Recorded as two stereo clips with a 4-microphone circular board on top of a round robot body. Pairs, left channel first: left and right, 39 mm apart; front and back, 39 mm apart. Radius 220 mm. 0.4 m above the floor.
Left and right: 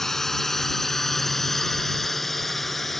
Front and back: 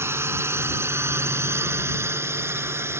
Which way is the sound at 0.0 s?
175° left.